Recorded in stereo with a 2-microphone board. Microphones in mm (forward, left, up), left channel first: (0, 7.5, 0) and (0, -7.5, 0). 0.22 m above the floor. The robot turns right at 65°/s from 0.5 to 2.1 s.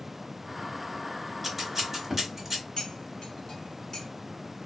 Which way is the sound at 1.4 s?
5° right (ahead or behind).